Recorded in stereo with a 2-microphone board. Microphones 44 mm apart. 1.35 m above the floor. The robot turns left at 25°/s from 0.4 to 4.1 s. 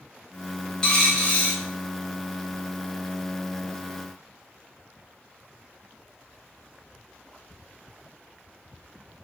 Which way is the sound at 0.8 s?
20° left (ahead or behind).